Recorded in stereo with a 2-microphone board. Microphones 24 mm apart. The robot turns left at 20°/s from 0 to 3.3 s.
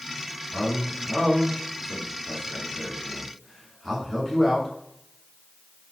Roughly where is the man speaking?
Centre.